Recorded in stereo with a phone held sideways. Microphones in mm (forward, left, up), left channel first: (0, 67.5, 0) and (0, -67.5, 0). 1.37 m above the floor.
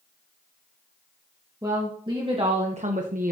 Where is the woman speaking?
25° right (ahead or behind), 1.8 m; by 3.3 s 80° right, 0.9 m.